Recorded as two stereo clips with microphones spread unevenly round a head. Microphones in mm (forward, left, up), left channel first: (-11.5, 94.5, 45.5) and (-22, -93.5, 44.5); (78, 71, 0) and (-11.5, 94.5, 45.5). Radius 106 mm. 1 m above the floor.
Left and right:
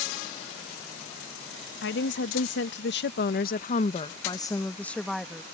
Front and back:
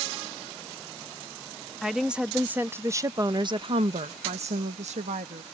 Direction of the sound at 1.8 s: 70° left.